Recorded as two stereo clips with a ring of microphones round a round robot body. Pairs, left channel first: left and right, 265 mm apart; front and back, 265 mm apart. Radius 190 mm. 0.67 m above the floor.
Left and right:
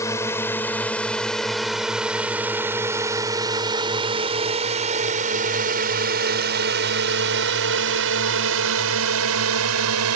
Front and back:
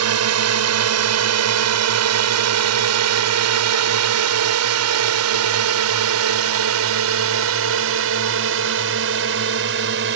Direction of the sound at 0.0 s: 170° left.